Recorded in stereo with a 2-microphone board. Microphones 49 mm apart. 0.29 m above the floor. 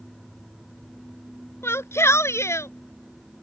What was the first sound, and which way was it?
A shout, 60° left (ahead or behind).